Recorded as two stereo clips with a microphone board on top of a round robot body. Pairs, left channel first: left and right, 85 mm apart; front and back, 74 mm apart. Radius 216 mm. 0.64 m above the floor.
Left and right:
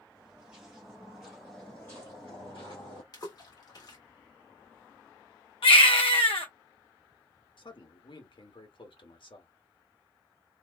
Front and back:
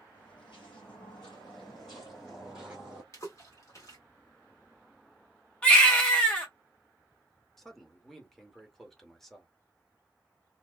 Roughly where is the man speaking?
Left.